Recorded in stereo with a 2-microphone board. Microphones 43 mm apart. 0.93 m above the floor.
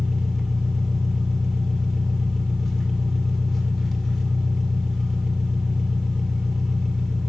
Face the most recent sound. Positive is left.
turn(degrees=5)  # may be behind; listen again after turning